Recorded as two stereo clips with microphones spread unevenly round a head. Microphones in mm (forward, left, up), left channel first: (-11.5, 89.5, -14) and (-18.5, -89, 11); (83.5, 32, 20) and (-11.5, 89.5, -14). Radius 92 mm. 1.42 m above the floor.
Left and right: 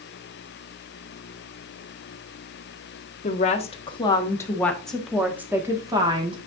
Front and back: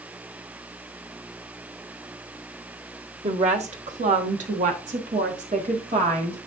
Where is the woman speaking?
140° left, 1.7 m; by 6.4 s 155° right, 1.9 m.